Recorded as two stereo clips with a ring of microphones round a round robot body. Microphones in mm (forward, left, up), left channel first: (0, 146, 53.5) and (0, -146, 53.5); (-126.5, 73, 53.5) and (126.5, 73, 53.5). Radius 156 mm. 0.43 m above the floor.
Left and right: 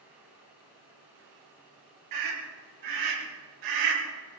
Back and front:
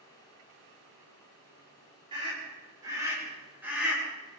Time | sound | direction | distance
2.1 | a scream | 75° right | 8 m